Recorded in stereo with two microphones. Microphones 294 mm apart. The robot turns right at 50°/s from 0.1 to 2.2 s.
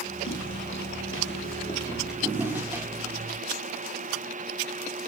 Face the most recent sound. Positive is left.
turn(degrees=-5)  # may be behind; listen again after turning